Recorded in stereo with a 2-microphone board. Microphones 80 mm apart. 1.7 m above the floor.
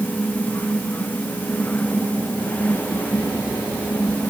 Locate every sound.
Only background noise.